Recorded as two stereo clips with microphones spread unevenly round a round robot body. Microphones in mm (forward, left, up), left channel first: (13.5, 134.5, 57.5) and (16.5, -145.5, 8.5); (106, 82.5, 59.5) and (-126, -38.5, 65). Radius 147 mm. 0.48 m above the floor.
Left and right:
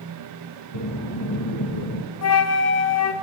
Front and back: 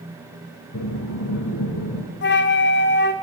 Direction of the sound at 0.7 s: 70° left.